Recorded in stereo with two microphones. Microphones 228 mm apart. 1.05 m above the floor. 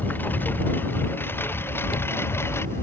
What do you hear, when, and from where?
0.0 s a lawn mower: 10° left (ahead or behind)
1.7 s chewing: 85° left